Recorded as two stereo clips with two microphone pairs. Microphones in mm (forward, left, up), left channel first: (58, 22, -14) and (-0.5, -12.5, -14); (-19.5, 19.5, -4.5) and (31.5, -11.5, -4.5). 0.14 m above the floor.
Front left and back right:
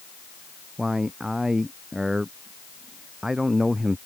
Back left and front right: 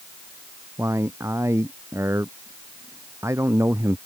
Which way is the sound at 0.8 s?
70° right.